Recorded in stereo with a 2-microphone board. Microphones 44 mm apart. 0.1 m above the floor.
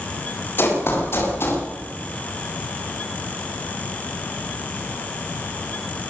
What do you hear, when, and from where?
0.6 s running footsteps: 55° left (ahead or behind), 9.5 m; by 1.6 s 60° left (ahead or behind), 9.5 m